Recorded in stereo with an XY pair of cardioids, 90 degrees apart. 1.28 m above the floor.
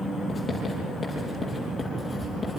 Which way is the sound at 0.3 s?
25° left.